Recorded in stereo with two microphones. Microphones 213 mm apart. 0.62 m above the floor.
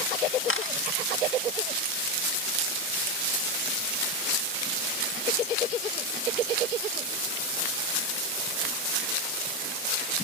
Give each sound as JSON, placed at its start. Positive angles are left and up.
{"t": 0.5, "sound": "a camera shutter", "side_deg": 75, "distance_m": 0.7}